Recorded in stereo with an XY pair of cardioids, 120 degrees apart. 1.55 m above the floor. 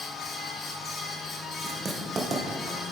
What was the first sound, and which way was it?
A fan, 40° left.